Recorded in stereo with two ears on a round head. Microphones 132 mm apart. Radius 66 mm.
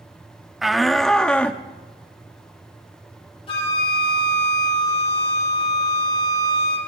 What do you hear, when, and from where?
0.6 s a shout: centre (ahead or behind), 0.7 m; by 1.6 s 10° left (ahead or behind), 0.7 m
3.5 s a flute: 40° left (ahead or behind), 4.5 m